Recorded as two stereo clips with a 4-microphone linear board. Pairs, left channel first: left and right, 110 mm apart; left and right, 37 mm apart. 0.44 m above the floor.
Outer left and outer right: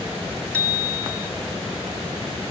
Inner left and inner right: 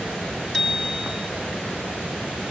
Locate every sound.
0.5 s a bicycle bell: 10° left (ahead or behind), 3.5 m